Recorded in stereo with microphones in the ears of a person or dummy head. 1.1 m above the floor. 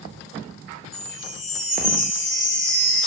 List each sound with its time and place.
0.9 s a chime: 25° left (ahead or behind), 2.5 m